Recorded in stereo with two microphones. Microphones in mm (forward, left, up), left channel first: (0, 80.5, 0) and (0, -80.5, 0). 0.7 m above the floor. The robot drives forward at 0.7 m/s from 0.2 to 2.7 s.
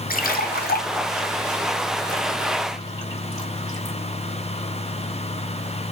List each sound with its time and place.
0.1 s a splash: 60° left (ahead or behind), 0.7 m; by 4.0 s 20° left (ahead or behind), 1.7 m